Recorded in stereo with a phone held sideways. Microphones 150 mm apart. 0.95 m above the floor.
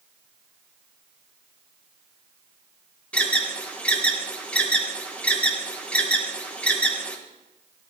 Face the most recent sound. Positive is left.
turn(degrees=10)  # may be behind; listen again after turning